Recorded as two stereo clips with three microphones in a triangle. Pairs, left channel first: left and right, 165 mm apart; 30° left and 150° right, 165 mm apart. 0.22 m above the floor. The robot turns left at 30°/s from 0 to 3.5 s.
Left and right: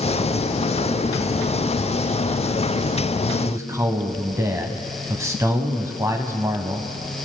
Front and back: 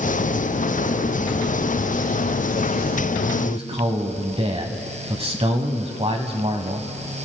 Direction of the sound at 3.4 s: 145° right.